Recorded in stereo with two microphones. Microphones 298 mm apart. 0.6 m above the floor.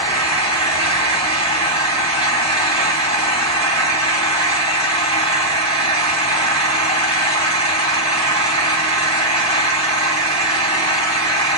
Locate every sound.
0.0 s an engine running: 20° left (ahead or behind), 3.5 m